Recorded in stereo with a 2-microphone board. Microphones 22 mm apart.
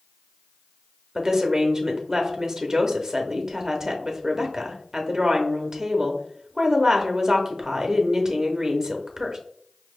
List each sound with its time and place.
1.1 s a woman speaking: 25° right (ahead or behind), 0.7 m